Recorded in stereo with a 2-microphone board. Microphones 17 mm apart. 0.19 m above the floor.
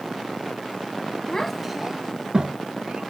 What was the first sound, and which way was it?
A child speaking, 30° left (ahead or behind).